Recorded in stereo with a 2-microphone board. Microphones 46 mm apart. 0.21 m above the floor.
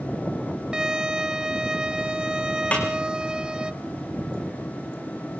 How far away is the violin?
About 1.0 m.